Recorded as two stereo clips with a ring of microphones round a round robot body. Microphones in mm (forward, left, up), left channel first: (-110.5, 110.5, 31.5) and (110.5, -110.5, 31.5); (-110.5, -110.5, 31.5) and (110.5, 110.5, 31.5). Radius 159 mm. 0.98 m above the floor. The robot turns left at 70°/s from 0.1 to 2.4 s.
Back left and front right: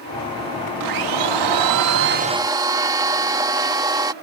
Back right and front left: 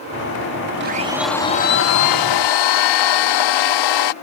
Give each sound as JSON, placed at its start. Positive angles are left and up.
{"t": 0.8, "sound": "a blender", "azimuth_deg": -10}